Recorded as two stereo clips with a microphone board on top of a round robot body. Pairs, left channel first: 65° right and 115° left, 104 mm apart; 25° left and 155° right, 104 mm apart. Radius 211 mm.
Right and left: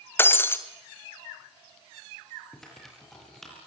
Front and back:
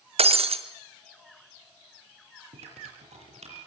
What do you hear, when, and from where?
0.2 s breaking glass: 135° right, 1.9 m
2.5 s typing on a keyboard: 155° right, 7 m